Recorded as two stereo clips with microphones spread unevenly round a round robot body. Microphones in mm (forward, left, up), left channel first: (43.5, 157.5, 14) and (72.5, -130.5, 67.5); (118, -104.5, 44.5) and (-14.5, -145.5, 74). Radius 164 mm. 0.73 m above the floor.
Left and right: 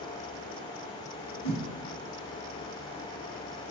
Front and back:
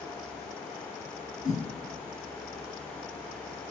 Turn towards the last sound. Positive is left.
turn(degrees=55)